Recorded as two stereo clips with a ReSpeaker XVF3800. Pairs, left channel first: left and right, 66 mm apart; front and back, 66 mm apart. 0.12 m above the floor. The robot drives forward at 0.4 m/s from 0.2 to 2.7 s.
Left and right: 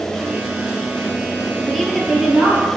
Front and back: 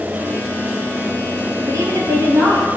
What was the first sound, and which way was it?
A woman speaking, straight behind.